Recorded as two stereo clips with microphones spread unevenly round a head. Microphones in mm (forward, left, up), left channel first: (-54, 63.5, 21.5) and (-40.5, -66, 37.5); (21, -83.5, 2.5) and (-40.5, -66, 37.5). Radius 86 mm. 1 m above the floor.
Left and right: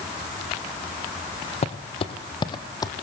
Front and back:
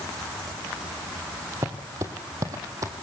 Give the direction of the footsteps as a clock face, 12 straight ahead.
8 o'clock.